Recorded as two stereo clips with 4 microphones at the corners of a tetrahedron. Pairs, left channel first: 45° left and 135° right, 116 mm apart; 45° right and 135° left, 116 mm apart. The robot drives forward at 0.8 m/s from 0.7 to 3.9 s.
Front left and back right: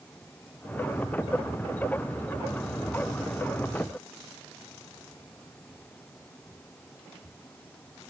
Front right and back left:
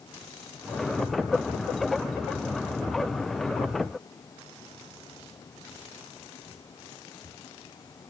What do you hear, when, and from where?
Only background noise.